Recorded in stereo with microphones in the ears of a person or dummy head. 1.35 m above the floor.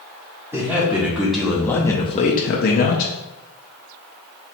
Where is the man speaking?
10° right (ahead or behind), 1.2 m; by 3.1 s 45° left (ahead or behind), 0.7 m.